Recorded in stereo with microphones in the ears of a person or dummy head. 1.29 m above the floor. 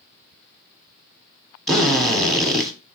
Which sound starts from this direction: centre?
A drill, at 1.7 s.